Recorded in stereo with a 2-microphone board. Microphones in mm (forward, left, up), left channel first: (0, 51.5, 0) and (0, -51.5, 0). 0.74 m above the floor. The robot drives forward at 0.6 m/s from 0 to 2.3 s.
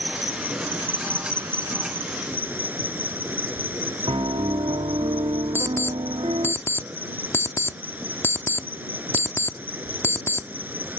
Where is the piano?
65° right (ahead or behind).